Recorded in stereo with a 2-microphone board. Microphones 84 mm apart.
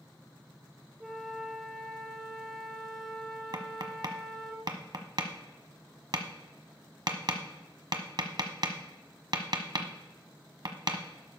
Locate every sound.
1.0 s a flute: centre (ahead or behind), 1.2 m
3.5 s tapping: 60° right (ahead or behind), 1.1 m